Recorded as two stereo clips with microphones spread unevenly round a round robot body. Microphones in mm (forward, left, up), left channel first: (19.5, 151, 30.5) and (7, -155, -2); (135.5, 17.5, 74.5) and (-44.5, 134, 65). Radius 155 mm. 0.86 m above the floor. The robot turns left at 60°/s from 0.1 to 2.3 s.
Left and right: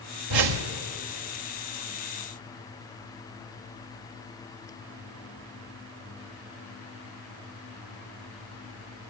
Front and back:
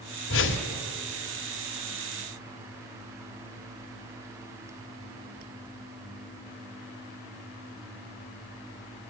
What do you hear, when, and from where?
0.3 s a whoosh: 70° right, 1.8 m; by 0.7 s 95° right, 1.8 m